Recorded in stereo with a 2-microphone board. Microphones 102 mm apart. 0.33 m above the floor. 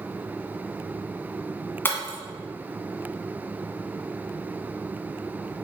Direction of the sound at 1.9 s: 25° left (ahead or behind).